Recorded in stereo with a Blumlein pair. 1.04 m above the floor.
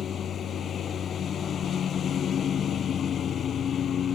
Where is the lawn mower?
25° left.